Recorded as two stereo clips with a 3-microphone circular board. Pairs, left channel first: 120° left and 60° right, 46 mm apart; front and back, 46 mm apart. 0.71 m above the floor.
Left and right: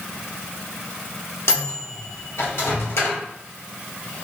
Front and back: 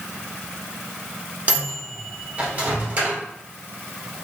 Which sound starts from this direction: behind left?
A microwave, at 1.5 s.